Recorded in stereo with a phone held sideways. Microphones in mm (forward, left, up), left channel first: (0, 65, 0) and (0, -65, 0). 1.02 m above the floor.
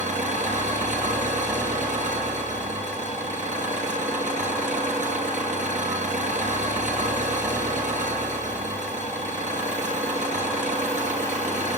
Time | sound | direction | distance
0.0 | an engine running | 75° right (ahead or behind) | 8 m